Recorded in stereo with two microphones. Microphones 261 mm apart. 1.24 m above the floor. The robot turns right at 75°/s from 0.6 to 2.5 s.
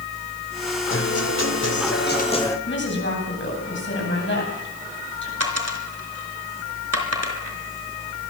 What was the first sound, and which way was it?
A guitar, 50° left.